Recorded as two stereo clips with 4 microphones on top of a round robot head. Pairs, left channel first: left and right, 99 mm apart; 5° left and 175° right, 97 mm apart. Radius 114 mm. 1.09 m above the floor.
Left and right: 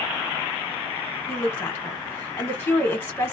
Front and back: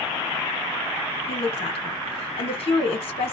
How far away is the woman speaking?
About 1.4 m.